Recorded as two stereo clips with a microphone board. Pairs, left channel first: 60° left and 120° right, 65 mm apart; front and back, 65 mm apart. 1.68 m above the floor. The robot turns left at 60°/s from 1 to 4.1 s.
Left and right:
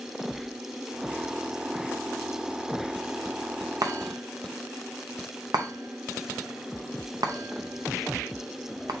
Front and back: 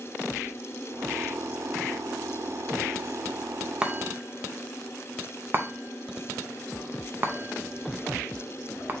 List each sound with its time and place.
3.8 s a chime: 105° right, 0.6 m; by 8.9 s 125° right, 0.6 m